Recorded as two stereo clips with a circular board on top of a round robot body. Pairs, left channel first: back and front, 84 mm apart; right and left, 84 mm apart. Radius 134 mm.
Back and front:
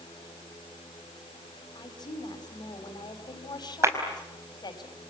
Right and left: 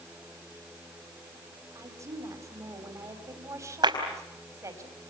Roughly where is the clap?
Ahead left.